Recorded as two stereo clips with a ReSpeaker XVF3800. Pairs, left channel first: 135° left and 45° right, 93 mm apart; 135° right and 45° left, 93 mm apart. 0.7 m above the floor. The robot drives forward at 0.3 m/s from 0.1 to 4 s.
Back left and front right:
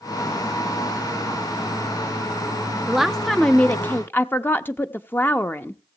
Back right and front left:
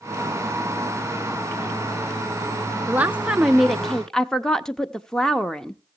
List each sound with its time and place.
2.9 s a woman speaking: 30° left, 0.5 m; by 5.8 s 150° left, 0.5 m